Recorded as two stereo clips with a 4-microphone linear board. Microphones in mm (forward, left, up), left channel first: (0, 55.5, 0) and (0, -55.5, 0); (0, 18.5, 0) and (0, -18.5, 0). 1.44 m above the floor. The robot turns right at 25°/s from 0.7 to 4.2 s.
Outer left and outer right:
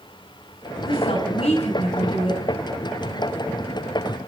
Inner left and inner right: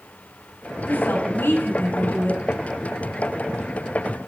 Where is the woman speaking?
70° left, 6 m; by 2.4 s 110° left, 6 m.